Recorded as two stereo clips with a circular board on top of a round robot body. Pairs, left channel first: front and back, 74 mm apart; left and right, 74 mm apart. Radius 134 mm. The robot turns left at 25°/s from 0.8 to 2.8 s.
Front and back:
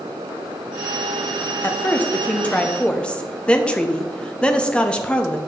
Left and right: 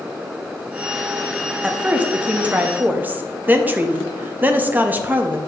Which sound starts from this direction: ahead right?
A woman speaking, at 1.6 s.